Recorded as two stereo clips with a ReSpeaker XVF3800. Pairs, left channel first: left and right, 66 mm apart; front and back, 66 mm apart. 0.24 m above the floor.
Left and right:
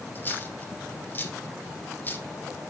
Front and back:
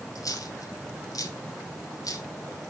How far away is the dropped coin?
About 1.4 m.